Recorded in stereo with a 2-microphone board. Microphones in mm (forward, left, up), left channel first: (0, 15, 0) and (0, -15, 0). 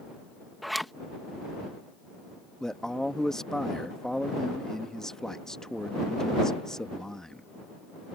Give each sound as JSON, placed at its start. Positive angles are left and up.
{"t": 0.6, "sound": "a zipper", "side_deg": 0}
{"t": 2.6, "sound": "a man speaking", "side_deg": 20}